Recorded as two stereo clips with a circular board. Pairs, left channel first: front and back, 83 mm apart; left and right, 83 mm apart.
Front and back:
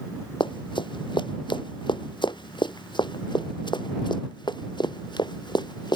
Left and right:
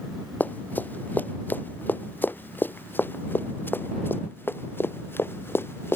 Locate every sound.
0.4 s running footsteps: 20° left; by 6.0 s 30° left